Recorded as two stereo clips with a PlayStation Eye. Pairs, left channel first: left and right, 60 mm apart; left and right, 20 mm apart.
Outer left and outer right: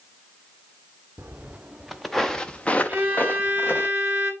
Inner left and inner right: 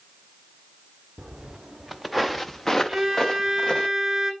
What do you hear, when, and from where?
1.2 s footsteps: 30° right (ahead or behind), 0.8 m; by 3.9 s 40° left (ahead or behind), 1.4 m
2.9 s a violin: 25° right (ahead or behind), 2.0 m